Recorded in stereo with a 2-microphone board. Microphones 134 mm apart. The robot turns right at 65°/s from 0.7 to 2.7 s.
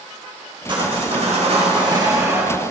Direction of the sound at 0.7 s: 130° right.